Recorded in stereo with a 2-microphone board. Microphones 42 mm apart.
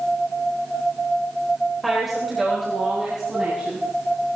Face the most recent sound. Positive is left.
turn(degrees=-15)  # may be behind; listen again after turning